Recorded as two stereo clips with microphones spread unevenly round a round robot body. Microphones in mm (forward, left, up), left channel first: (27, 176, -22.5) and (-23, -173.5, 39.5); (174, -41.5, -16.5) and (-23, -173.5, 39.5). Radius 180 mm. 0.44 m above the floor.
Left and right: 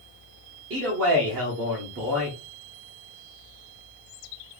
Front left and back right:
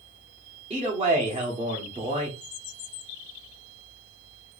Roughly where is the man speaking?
Right.